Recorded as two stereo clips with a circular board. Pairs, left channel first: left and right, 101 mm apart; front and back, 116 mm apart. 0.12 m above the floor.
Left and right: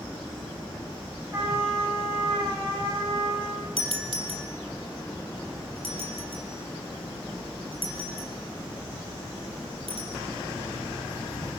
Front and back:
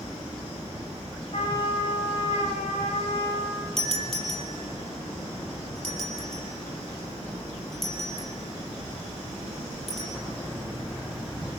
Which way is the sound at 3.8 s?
85° right.